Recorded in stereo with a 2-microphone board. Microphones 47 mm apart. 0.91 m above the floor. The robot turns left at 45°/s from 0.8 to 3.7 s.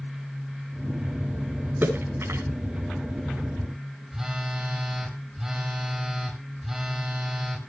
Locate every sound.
1.8 s a splash: 45° right (ahead or behind), 5 m; by 2.4 s 70° right (ahead or behind), 5 m
4.1 s a phone buzzing: 10° right (ahead or behind), 4.5 m